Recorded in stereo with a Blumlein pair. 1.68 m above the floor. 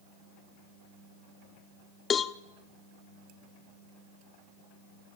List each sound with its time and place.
2.1 s a cowbell: 25° left, 0.6 m